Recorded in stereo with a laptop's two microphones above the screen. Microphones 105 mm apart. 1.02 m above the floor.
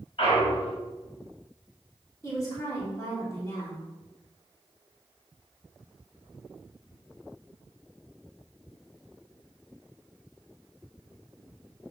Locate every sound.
0.2 s a clunk: 55° left (ahead or behind), 2.5 m
2.2 s a woman speaking: 30° left (ahead or behind), 3 m